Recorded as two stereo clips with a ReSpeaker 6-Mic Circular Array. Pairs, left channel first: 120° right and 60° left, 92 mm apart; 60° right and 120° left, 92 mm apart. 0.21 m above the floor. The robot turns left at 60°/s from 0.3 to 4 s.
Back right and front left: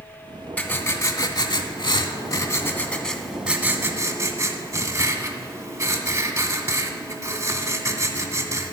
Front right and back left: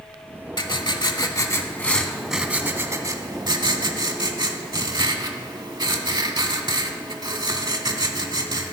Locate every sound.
0.6 s writing: 50° right, 0.6 m; by 8.7 s 100° left, 0.6 m